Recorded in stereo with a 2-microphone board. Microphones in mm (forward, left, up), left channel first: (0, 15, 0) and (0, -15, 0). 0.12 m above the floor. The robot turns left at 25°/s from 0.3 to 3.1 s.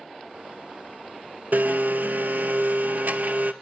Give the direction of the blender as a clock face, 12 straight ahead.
3 o'clock.